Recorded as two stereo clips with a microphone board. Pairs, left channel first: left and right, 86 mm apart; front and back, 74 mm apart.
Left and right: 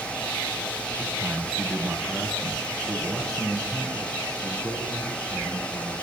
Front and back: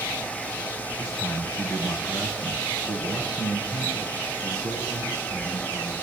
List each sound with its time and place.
1.0 s a man speaking: 15° right, 2 m; by 5.9 s 20° right, 5 m